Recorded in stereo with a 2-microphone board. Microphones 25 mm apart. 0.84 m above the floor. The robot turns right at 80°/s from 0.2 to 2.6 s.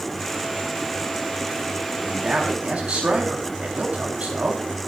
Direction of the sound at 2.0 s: 175° right.